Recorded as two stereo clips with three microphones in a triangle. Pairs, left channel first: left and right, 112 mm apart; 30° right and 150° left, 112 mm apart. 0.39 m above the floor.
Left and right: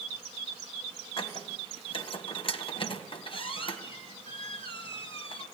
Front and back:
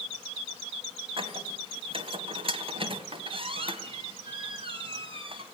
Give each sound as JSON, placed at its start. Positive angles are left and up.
{"t": 1.2, "sound": "a squeak", "azimuth_deg": 120, "distance_m": 2.0}